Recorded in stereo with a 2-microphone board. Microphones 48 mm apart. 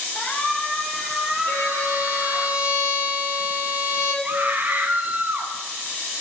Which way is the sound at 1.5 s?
65° left (ahead or behind).